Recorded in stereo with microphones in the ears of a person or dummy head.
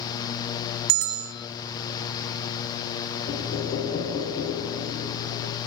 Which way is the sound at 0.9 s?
55° right (ahead or behind).